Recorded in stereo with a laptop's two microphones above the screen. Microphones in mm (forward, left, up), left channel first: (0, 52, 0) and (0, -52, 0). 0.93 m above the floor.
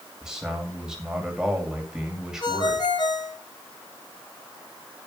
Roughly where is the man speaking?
Centre.